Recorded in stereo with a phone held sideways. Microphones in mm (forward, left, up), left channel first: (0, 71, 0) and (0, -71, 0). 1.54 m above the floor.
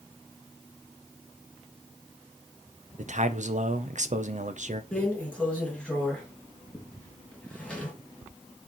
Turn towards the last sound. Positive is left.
turn(degrees=5)  # may be behind; listen again after turning